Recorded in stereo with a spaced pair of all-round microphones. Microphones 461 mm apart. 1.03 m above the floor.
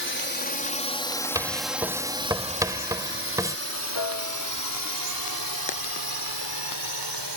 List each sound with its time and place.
0.0 s a drone: 25° left (ahead or behind); by 7.4 s 60° right (ahead or behind)
1.4 s writing: 5° right (ahead or behind)
4.0 s a piano: 70° left (ahead or behind)